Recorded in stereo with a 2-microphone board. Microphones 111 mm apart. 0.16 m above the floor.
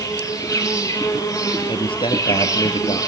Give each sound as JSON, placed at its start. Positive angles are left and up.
{"t": 0.0, "sound": "an insect", "side_deg": 30, "distance_m": 4.5}
{"t": 1.7, "sound": "a man speaking", "side_deg": 55, "distance_m": 3.0}